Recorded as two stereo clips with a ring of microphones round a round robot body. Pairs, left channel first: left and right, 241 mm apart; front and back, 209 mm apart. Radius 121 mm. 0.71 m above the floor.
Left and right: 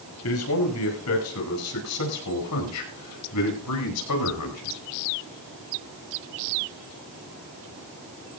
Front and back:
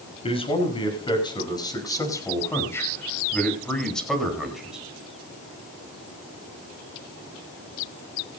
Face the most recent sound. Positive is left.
turn(degrees=95)